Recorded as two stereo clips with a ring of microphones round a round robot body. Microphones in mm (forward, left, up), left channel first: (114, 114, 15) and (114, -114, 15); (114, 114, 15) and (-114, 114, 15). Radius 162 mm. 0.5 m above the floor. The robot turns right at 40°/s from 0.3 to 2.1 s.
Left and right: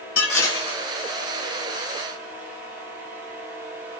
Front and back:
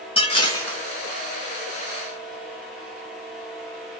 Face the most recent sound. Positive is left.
turn(degrees=140)